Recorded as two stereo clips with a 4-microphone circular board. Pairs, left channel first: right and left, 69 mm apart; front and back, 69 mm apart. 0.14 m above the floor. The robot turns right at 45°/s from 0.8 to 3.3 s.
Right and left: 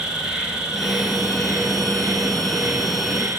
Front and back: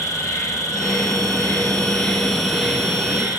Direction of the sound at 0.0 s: 15° left.